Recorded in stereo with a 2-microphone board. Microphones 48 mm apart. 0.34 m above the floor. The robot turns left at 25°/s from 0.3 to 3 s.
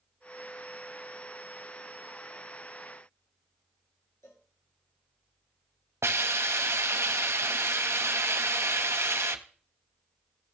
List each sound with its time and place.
4.2 s a cowbell: 85° left, 2.5 m
6.0 s a hiss: 65° right (ahead or behind), 0.9 m